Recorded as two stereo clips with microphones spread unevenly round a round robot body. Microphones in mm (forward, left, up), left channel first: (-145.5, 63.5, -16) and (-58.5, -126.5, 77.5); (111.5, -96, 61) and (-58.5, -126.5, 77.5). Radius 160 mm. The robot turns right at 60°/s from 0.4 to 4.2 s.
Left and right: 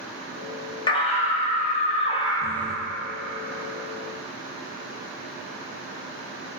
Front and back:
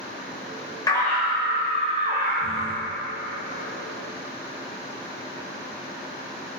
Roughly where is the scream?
Left.